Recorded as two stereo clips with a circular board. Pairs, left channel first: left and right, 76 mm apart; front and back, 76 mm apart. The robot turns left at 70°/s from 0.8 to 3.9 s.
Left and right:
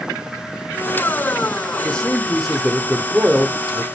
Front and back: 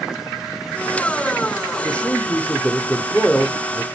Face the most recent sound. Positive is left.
turn(degrees=-105)